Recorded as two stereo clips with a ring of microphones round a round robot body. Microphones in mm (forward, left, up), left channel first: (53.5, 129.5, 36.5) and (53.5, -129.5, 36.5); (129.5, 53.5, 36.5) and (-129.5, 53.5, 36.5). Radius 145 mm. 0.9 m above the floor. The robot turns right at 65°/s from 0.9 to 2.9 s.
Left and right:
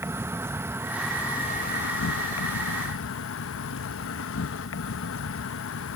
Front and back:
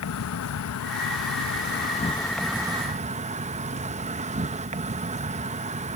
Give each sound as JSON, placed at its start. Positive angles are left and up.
{"t": 0.0, "sound": "an insect", "azimuth_deg": -10}